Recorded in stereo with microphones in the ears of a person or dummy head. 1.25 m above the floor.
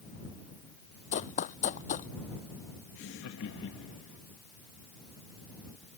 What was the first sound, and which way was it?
Running footsteps, 40° left (ahead or behind).